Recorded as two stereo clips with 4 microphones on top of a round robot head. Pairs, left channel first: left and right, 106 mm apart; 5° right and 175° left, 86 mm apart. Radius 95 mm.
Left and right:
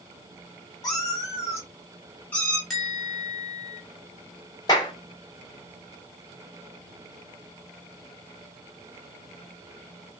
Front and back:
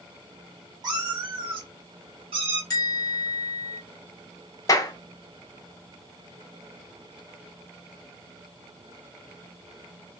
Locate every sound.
0.8 s a cat meowing: 140° left, 1.6 m; by 2.6 s 170° left, 2.0 m
2.7 s a bell: straight ahead, 1.0 m
4.7 s a clap: 25° left, 0.6 m